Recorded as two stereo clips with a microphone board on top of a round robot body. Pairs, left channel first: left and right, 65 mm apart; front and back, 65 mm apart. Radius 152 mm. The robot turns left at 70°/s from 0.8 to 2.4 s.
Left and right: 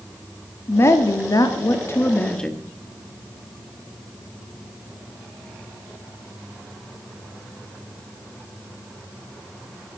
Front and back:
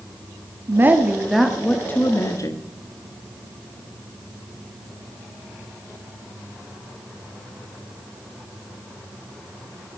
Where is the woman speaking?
130° left, 1.6 m; by 2.7 s 15° left, 1.6 m.